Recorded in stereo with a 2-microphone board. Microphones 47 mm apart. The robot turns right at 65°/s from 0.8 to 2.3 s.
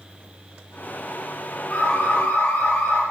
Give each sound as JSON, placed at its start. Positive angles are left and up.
{"t": 1.7, "sound": "an alarm", "azimuth_deg": 30, "distance_m": 5.0}